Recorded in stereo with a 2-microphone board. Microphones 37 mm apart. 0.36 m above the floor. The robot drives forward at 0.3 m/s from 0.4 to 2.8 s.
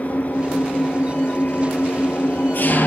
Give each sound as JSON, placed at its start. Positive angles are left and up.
{"t": 0.0, "sound": "an engine running", "side_deg": 45, "distance_m": 3.0}